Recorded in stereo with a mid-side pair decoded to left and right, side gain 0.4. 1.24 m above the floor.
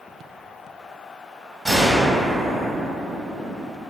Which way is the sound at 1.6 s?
10° right.